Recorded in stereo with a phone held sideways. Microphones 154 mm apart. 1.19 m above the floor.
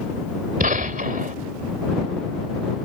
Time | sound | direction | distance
0.6 | a gunshot | 60° right (ahead or behind) | ?